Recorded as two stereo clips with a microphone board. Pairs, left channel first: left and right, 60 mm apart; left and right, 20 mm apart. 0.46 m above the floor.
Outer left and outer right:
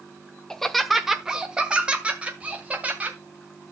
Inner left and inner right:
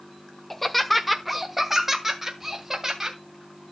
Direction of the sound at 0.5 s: 10° left (ahead or behind).